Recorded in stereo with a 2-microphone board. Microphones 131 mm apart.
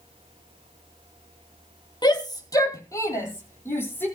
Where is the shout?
30° left (ahead or behind), 3 m; by 4.1 s 15° left (ahead or behind), 6 m.